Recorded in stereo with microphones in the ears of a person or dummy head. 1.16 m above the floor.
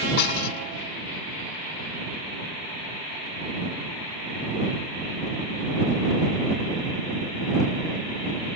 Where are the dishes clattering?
55° left (ahead or behind).